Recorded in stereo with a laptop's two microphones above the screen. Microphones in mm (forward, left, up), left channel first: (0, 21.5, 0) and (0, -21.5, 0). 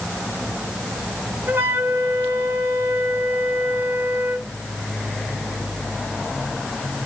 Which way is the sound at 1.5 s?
75° right (ahead or behind).